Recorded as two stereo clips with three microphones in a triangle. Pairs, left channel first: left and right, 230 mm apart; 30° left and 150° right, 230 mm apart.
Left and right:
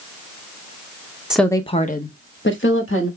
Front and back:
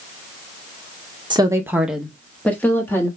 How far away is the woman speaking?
About 0.6 m.